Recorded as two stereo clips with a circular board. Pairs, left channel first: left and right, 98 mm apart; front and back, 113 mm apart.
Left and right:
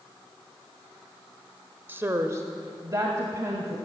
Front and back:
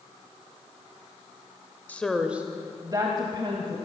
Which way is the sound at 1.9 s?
50° right.